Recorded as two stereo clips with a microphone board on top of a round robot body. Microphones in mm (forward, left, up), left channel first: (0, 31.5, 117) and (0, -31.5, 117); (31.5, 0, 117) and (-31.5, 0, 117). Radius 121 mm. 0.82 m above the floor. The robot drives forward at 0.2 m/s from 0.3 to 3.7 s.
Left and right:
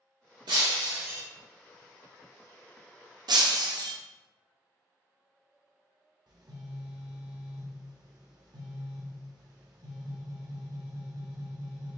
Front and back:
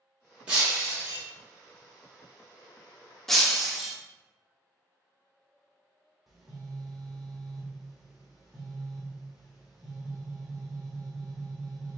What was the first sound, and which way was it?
Breaking glass, 105° right.